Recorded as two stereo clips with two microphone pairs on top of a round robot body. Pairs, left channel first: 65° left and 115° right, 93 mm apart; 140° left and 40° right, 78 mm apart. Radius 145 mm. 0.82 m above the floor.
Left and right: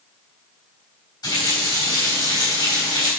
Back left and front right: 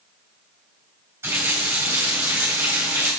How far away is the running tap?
About 3.5 m.